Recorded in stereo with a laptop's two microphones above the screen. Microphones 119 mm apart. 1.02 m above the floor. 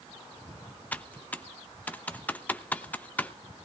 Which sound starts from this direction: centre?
Typing on a keyboard, at 0.9 s.